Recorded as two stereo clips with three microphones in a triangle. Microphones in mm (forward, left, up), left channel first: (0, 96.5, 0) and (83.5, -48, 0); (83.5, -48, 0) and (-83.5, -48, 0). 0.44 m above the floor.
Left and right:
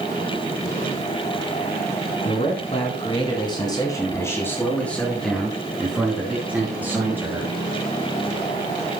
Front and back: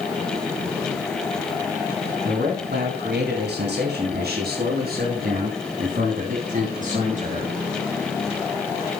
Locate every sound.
2.2 s a man speaking: 165° left, 4 m; by 7.5 s 135° right, 6 m